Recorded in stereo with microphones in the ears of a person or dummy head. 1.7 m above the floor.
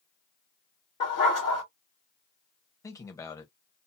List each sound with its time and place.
1.0 s a dog barking: 25° left (ahead or behind), 1.5 m
2.8 s a man speaking: 20° left (ahead or behind), 0.8 m